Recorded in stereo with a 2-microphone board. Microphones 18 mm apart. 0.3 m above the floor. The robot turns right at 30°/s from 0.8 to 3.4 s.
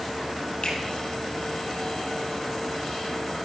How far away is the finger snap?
About 5.5 m.